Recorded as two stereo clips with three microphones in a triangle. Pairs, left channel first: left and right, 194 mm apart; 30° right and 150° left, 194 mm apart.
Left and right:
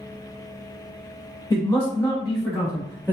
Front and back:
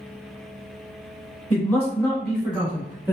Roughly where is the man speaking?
Ahead left.